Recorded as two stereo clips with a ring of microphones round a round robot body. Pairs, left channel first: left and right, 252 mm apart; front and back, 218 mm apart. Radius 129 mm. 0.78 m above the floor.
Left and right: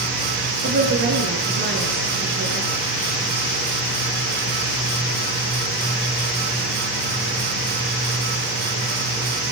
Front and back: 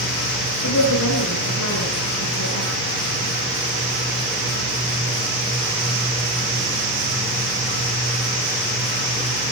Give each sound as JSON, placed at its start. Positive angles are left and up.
{"t": 0.6, "sound": "a woman speaking", "azimuth_deg": -35, "distance_m": 9.0}